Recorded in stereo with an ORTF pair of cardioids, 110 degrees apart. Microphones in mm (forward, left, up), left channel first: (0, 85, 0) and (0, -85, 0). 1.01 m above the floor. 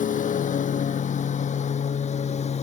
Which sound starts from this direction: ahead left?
A lawn mower, at 0.0 s.